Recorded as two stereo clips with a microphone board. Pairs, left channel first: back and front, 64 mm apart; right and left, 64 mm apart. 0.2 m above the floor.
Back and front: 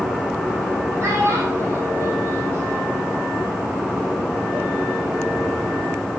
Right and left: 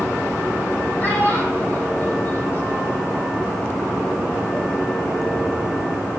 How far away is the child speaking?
About 5.5 m.